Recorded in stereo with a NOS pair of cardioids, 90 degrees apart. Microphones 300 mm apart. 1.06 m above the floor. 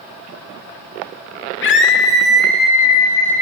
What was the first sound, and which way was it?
A scream, 40° left.